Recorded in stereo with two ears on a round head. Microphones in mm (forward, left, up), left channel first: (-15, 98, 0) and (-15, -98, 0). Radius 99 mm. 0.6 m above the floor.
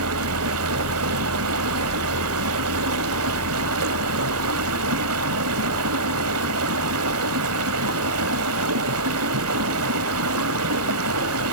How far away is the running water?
About 1.3 m.